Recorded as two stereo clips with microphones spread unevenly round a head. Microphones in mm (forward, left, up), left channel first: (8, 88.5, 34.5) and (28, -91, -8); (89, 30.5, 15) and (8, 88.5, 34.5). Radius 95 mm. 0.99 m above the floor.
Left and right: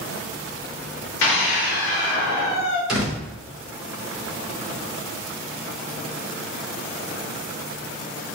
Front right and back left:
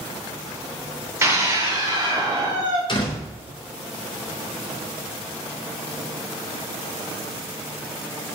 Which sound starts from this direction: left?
A scream, at 1.2 s.